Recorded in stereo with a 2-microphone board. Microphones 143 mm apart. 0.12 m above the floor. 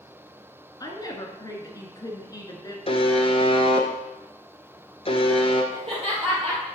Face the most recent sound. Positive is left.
turn(degrees=-45)  # may be behind; listen again after turning